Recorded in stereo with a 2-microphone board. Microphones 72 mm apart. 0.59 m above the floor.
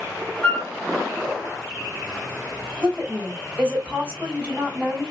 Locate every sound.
0.4 s a flute: 25° left (ahead or behind), 1.9 m
2.8 s a woman speaking: 15° right (ahead or behind), 2.5 m